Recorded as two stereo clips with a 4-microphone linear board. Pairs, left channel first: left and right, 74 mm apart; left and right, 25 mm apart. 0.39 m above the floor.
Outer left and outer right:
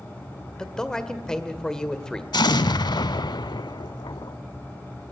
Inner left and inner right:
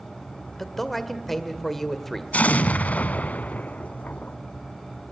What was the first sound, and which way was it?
A man speaking, 10° left (ahead or behind).